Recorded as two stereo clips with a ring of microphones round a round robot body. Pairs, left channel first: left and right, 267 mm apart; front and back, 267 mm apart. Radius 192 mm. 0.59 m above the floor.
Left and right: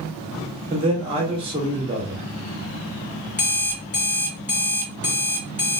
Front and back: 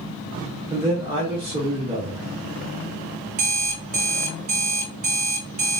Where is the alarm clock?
140° left, 1.6 m.